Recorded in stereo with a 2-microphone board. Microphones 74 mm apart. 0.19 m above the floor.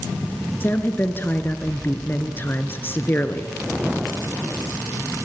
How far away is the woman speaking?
About 2.5 m.